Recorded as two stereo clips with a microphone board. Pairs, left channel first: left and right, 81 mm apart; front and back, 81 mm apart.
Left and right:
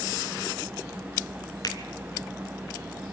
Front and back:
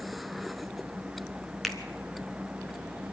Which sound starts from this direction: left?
A finger snap, at 1.6 s.